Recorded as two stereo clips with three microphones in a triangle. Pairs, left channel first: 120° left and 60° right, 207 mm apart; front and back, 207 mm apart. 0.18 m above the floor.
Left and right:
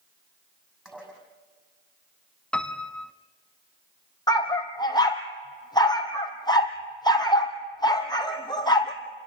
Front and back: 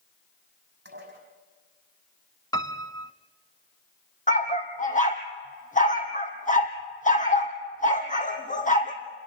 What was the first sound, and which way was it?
Dishes clattering, 145° right.